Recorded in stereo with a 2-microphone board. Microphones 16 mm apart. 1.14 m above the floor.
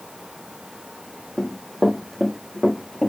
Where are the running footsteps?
40° left (ahead or behind), 2 m; by 3.1 s 30° left (ahead or behind), 3.5 m.